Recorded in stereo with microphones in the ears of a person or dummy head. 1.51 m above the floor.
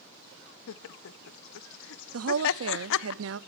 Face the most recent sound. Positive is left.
turn(degrees=-75)  # may be behind; listen again after turning